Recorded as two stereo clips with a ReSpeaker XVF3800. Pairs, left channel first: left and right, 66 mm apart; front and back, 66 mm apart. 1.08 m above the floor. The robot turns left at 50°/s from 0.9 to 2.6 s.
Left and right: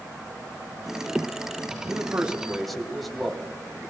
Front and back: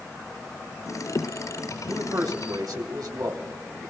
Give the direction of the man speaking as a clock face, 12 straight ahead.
5 o'clock.